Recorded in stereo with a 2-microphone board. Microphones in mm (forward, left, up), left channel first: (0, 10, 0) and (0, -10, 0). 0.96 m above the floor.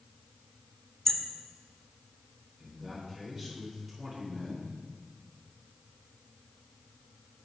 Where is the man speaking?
15° right (ahead or behind), 3 m.